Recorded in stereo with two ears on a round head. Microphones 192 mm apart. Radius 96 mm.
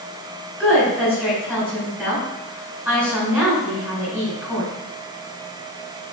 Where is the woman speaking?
10° right (ahead or behind), 3.5 m.